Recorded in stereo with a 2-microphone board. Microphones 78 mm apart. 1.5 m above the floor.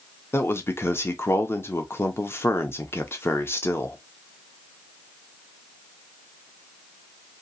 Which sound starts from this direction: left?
A man speaking, at 0.3 s.